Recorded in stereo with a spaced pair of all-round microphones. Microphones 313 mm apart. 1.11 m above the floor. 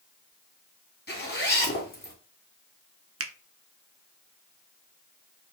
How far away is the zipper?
About 2.5 m.